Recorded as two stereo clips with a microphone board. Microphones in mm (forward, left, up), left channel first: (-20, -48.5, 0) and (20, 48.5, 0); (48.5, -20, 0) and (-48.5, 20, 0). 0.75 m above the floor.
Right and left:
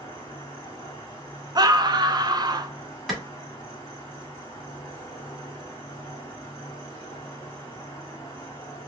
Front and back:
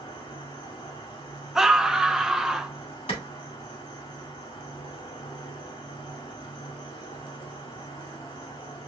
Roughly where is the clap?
Ahead.